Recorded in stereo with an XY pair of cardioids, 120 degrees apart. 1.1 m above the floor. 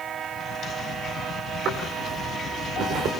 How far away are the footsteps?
About 7 m.